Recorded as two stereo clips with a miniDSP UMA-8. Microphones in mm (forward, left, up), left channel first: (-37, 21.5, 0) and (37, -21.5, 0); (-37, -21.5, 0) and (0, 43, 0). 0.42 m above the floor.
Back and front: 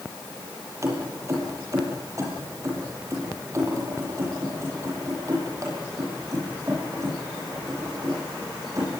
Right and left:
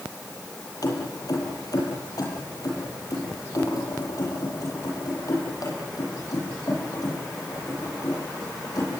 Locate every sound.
0.8 s keys jangling: 85° right, 8.5 m; by 8.9 s 80° right, 14 m